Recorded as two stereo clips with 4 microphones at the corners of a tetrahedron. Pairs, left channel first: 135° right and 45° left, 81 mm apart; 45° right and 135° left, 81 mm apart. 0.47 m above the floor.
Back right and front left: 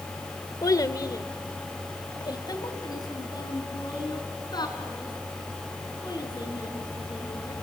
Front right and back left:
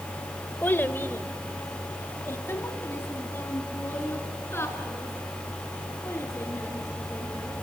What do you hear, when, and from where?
0.6 s a child speaking: 105° right, 1.1 m